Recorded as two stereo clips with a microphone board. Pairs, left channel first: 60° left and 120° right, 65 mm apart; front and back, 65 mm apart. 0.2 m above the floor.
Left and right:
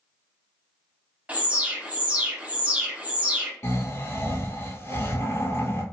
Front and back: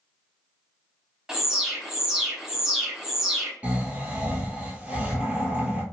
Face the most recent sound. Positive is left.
turn(degrees=110)